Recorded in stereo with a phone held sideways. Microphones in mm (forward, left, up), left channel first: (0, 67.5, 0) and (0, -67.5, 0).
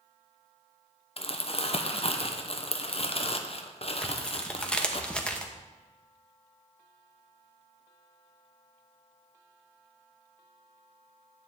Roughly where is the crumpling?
Left.